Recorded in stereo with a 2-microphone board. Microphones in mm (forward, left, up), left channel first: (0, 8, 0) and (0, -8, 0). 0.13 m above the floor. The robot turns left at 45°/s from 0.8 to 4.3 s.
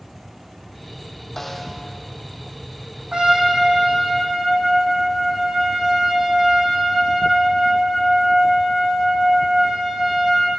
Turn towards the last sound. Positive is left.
turn(degrees=-130)